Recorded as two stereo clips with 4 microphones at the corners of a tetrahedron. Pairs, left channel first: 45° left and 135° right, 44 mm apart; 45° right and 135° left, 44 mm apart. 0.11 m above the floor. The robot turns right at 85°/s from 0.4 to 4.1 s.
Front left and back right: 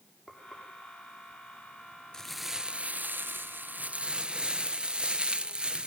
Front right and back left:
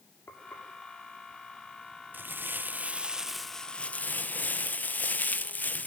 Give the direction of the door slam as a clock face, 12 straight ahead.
I don't hear a door slam.